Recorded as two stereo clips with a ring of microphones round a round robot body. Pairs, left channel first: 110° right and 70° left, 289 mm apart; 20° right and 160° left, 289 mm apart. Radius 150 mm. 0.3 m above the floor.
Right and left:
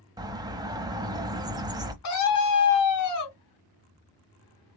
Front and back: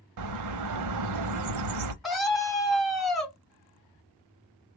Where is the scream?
110° right, 3 m.